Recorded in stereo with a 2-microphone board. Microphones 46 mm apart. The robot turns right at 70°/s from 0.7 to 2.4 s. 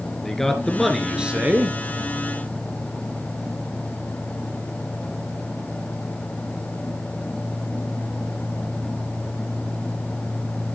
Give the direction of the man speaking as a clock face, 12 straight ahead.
6 o'clock.